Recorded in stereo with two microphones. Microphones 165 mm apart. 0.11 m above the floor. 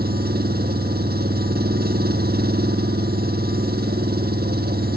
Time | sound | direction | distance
0.0 | an engine running | 75° right (ahead or behind) | ?